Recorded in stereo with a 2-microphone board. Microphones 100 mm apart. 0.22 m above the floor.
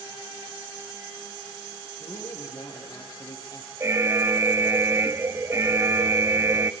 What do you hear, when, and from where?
2.0 s a man speaking: 35° left (ahead or behind), 6.5 m
3.8 s an alarm: 25° right (ahead or behind), 0.7 m